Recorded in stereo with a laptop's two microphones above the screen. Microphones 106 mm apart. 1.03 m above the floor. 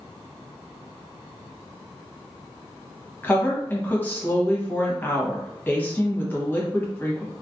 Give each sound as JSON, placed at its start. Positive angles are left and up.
{"t": 3.2, "sound": "a woman speaking", "side_deg": 20, "distance_m": 1.2}